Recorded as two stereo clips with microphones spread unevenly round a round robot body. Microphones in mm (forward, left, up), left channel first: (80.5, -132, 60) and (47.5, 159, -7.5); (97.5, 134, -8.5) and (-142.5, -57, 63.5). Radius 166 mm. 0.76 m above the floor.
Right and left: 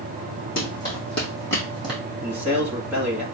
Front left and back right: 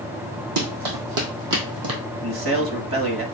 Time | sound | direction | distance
0.6 | running footsteps | 145° right | 2.5 m
2.2 | a man speaking | 170° left | 1.4 m